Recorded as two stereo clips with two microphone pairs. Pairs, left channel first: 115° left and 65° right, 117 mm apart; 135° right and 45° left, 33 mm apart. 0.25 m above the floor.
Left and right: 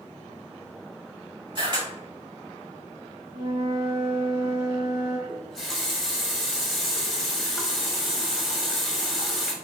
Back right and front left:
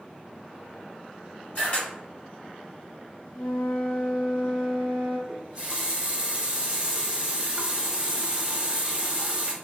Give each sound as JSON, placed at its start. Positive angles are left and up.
{"t": 1.6, "sound": "a camera shutter", "azimuth_deg": -105, "distance_m": 2.0}
{"t": 3.3, "sound": "a flute", "azimuth_deg": -125, "distance_m": 1.7}
{"t": 5.3, "sound": "a running tap", "azimuth_deg": 30, "distance_m": 1.0}